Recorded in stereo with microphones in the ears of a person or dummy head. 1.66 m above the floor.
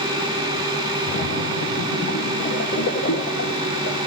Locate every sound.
1.1 s a splash: 65° left (ahead or behind), 1.2 m